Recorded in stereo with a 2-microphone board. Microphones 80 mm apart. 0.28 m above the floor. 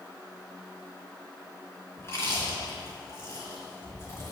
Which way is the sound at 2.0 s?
35° left (ahead or behind).